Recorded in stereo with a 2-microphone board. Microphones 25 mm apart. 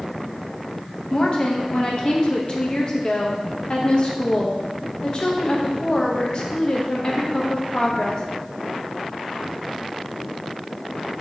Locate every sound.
1.1 s a woman speaking: 40° left (ahead or behind), 0.7 m